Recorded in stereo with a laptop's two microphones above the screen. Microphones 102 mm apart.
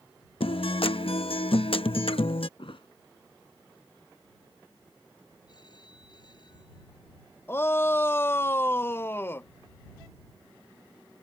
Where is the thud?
70° left (ahead or behind).